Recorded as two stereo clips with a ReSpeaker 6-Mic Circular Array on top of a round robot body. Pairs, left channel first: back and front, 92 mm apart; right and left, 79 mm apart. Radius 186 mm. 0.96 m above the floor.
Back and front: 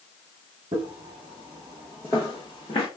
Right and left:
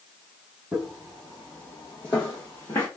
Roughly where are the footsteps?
Ahead.